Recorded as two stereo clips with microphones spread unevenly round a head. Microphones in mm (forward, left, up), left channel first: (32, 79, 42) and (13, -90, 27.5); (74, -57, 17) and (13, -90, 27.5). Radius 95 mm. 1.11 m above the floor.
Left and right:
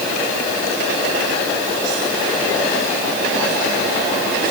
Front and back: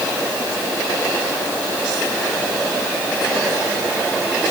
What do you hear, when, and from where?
Only background noise.